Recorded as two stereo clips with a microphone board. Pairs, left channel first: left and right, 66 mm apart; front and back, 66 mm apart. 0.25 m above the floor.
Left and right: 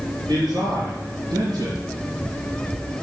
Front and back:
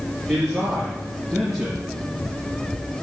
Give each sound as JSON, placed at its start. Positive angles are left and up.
{"t": 0.3, "sound": "a man speaking", "azimuth_deg": -95, "distance_m": 3.5}